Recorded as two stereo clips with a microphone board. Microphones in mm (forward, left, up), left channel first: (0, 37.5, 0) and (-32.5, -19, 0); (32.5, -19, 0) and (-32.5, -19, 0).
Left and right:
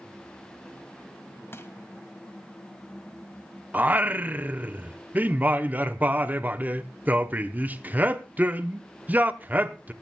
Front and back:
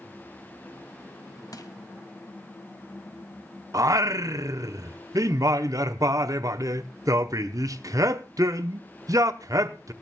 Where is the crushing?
10° left, 1.8 m.